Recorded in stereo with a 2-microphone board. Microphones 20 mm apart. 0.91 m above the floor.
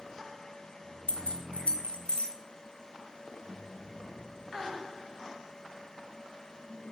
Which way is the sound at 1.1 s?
70° left (ahead or behind).